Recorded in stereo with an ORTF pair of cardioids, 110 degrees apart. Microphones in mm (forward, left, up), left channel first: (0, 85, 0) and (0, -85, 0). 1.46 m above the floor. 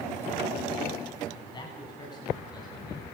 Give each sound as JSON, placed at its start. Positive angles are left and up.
{"t": 1.3, "sound": "a man speaking", "azimuth_deg": 25, "distance_m": 9.5}